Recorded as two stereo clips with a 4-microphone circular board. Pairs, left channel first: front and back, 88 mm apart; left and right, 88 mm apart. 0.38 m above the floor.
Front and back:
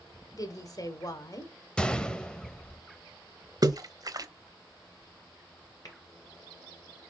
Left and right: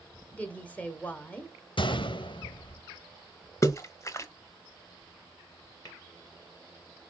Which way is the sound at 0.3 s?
25° left.